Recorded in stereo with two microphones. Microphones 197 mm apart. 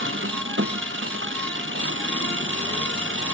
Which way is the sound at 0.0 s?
80° right.